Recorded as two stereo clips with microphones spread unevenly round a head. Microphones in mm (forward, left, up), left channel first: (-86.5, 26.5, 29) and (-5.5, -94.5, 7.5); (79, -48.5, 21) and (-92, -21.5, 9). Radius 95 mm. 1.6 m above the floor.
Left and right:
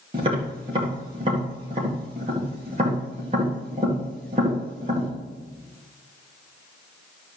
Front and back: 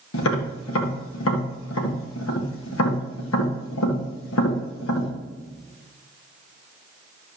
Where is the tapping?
10° left, 1.9 m.